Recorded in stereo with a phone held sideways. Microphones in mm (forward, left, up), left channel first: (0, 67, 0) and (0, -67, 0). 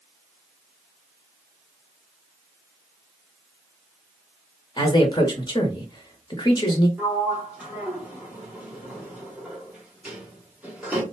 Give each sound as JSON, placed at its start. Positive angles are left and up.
{"t": 4.8, "sound": "a man speaking", "side_deg": 35, "distance_m": 0.9}
{"t": 7.0, "sound": "a sliding door", "side_deg": -10, "distance_m": 0.9}